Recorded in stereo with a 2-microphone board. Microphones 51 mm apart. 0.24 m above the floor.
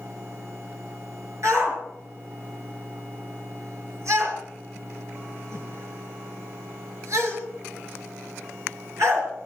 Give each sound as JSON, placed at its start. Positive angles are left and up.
{"t": 1.4, "sound": "a shout", "side_deg": -70, "distance_m": 4.5}